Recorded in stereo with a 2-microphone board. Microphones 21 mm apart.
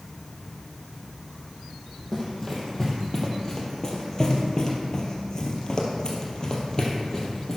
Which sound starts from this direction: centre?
Running footsteps, at 2.1 s.